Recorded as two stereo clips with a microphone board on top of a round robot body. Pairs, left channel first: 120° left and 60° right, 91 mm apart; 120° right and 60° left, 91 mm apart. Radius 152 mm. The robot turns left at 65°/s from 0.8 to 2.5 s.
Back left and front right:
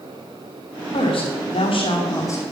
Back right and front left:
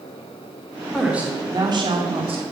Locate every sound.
0.9 s a woman speaking: 150° left, 3 m; by 2.4 s 55° left, 3 m